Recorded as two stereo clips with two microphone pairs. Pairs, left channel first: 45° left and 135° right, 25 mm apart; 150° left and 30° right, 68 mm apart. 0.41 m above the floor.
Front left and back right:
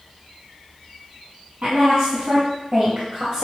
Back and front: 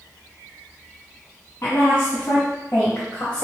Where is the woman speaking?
160° right, 2.5 m; by 3.4 s 145° right, 1.3 m.